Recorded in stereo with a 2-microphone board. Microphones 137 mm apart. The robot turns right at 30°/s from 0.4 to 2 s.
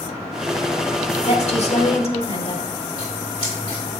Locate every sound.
1.3 s a woman speaking: 50° left (ahead or behind), 1.3 m; by 2.7 s 45° left (ahead or behind), 1.3 m
3.0 s scissors: 30° left (ahead or behind), 3 m